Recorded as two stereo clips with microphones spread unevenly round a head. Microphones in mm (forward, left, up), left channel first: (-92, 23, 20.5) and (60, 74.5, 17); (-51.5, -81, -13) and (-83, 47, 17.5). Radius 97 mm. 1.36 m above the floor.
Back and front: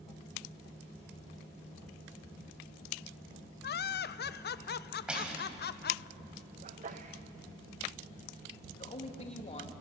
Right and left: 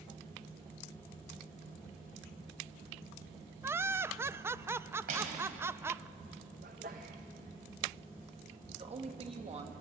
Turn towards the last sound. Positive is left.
turn(degrees=145)